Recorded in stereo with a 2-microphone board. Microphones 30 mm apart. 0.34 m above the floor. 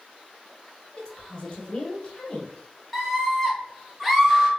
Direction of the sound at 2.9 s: 5° left (ahead or behind).